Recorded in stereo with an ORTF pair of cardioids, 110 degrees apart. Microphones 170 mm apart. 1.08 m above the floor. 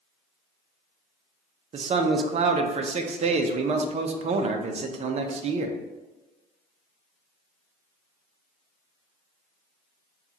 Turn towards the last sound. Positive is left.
turn(degrees=-40)